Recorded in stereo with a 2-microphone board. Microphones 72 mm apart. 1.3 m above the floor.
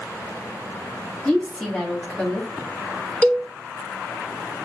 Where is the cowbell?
20° left (ahead or behind), 0.8 m.